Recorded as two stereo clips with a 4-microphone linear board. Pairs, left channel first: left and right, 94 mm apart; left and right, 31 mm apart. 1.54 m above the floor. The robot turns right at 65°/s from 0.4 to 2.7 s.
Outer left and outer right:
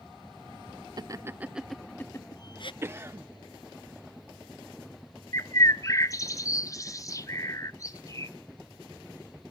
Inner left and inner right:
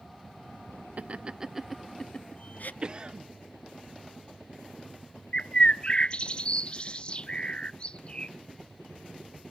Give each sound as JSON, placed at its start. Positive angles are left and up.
{"t": 1.0, "sound": "laughter", "side_deg": -45, "distance_m": 1.1}
{"t": 2.8, "sound": "a cough", "side_deg": -25, "distance_m": 1.3}
{"t": 5.3, "sound": "a bird", "side_deg": 35, "distance_m": 0.7}